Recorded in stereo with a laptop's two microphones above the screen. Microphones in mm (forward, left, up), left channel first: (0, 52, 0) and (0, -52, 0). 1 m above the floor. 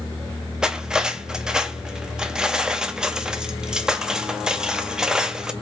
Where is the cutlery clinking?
5° right (ahead or behind), 0.6 m.